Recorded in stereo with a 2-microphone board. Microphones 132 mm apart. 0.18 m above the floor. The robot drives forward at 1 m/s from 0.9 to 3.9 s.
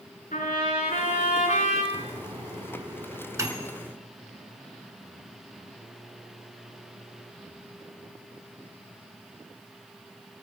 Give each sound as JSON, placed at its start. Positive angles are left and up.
{"t": 0.3, "sound": "a trumpet", "side_deg": 75, "distance_m": 6.0}
{"t": 1.9, "sound": "a microwave", "side_deg": -30, "distance_m": 1.2}